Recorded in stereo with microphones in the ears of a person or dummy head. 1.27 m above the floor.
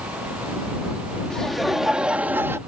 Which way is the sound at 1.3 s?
5° left (ahead or behind).